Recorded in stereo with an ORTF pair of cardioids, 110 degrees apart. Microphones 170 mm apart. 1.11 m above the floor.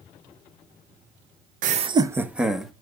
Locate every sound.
1.6 s laughter: 55° right, 0.6 m; by 2.7 s straight ahead, 1.6 m